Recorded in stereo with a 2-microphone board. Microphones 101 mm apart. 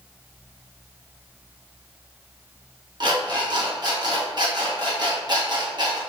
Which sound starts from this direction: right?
An alarm clock, at 3.0 s.